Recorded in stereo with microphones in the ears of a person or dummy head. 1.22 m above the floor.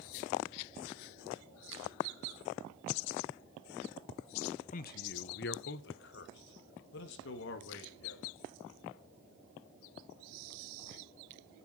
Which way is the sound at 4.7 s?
45° left (ahead or behind).